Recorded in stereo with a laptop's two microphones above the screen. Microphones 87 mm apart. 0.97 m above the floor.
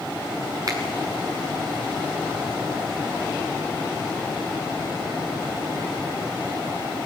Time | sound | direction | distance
0.7 | a finger snap | 45° right (ahead or behind) | 6.5 m